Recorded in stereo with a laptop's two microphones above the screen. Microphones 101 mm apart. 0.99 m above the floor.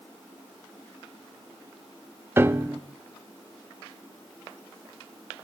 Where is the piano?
20° right (ahead or behind), 0.5 m.